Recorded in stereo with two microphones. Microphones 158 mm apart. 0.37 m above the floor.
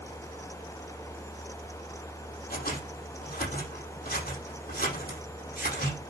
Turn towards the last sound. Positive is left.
turn(degrees=75)  # may be behind; listen again after turning